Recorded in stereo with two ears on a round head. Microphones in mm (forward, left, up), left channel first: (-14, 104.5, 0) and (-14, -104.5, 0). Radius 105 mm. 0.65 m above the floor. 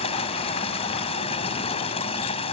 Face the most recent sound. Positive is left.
turn(degrees=25)  # may be behind; listen again after turning